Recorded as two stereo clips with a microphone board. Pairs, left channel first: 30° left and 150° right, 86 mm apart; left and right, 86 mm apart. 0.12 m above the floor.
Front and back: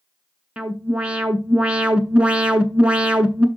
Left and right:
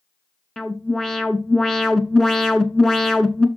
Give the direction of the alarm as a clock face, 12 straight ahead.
6 o'clock.